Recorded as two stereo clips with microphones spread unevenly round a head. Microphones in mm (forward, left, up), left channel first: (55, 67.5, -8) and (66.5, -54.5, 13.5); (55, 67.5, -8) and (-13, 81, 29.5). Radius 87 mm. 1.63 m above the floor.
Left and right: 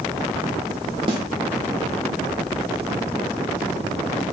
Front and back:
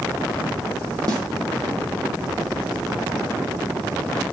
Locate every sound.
1.1 s a snare drum: 140° right, 0.9 m